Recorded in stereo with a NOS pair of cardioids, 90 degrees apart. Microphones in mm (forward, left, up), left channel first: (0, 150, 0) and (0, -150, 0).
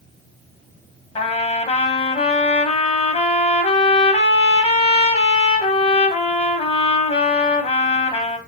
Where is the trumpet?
20° left, 0.7 m.